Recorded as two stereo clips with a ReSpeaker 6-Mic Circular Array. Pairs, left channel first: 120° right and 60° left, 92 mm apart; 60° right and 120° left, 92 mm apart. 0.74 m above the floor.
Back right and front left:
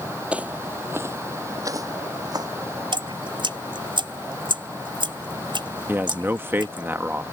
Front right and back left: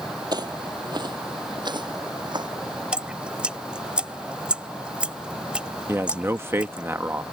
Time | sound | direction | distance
0.3 | footsteps | 130° left | ?
2.9 | dripping | 40° left | ?
5.9 | a man speaking | 95° left | ?